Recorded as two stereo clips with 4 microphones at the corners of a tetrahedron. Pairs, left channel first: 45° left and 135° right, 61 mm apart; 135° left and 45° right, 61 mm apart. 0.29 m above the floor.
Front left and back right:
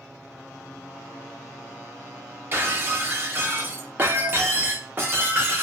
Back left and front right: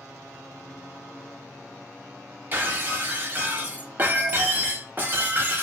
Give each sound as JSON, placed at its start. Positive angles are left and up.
{"t": 2.5, "sound": "breaking glass", "azimuth_deg": -90, "distance_m": 0.6}